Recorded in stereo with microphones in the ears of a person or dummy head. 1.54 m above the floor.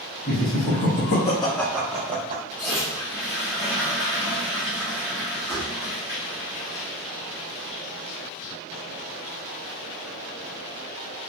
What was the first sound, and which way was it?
Laughter, 65° left (ahead or behind).